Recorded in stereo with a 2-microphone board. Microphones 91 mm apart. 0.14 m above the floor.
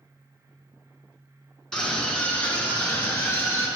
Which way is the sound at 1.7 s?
5° left (ahead or behind).